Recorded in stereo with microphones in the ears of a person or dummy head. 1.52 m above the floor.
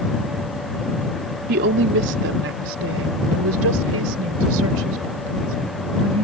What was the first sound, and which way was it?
A woman speaking, 55° right (ahead or behind).